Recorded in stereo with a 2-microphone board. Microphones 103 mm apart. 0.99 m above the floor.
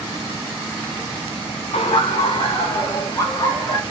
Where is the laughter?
75° left (ahead or behind), 0.5 m; by 3.8 s 35° left (ahead or behind), 1.8 m.